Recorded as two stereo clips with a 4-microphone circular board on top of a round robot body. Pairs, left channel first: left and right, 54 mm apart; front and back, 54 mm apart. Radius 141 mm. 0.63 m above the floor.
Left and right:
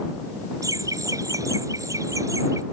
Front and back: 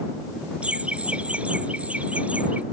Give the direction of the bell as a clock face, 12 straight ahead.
No bell in this recording.